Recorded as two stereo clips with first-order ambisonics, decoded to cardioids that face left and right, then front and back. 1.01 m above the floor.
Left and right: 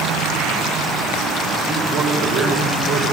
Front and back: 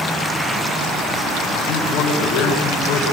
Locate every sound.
1.7 s a man speaking: 20° right, 5 m